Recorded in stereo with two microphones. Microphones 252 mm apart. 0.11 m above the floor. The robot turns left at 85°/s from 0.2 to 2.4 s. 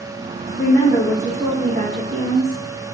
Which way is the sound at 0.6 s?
65° left.